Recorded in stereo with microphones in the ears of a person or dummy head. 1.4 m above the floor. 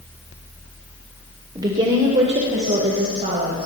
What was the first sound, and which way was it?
A woman speaking, 20° right (ahead or behind).